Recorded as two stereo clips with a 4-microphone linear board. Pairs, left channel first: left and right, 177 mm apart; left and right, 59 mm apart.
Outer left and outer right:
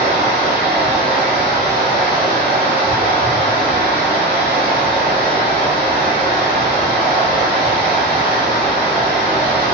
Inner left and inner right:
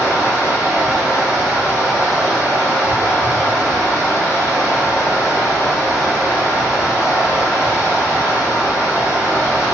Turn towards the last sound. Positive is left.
turn(degrees=75)  # may be behind; listen again after turning